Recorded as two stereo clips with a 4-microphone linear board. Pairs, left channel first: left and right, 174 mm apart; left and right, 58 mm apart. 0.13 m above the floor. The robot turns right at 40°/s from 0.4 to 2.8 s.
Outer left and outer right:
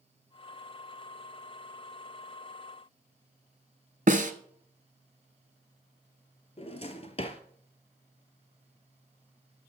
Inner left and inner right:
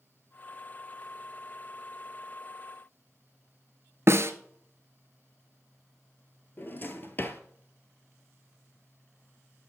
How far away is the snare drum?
About 0.7 m.